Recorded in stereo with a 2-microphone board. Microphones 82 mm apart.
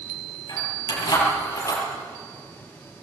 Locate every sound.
0.5 s keys jangling: 45° left (ahead or behind), 9.5 m; by 1.8 s 40° left (ahead or behind), 11 m